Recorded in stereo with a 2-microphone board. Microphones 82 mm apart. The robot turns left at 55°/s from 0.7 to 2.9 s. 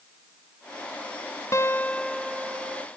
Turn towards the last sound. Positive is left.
turn(degrees=-40)